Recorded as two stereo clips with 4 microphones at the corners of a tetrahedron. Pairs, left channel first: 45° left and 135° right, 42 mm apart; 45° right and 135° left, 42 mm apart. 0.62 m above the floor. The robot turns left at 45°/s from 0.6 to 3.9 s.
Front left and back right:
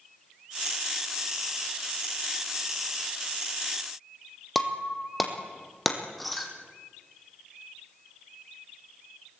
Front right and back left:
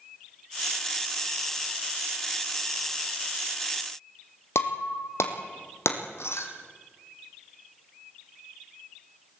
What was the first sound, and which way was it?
Breaking glass, 45° right.